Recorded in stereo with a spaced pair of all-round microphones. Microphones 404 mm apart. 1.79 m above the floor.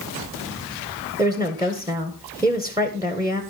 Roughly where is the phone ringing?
I don't hear a phone ringing.